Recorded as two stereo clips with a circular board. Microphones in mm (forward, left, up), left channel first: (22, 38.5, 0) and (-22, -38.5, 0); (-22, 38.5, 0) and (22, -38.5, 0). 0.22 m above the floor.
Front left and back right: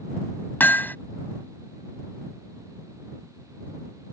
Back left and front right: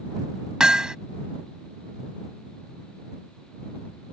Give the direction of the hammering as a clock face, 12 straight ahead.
12 o'clock.